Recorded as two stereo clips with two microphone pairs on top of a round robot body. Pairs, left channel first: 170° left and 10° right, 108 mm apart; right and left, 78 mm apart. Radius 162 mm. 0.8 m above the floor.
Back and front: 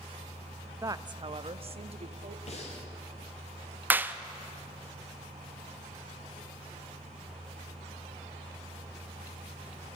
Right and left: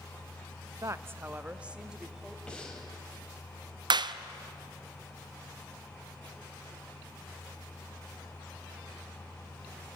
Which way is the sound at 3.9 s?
65° left.